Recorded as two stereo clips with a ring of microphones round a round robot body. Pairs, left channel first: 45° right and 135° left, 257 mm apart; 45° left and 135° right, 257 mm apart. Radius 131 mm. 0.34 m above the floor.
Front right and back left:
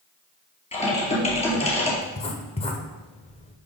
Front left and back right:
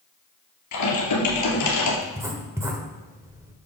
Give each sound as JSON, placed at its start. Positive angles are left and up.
{"t": 0.7, "sound": "typing on a keyboard", "azimuth_deg": 20, "distance_m": 3.0}
{"t": 2.0, "sound": "writing", "azimuth_deg": -70, "distance_m": 1.3}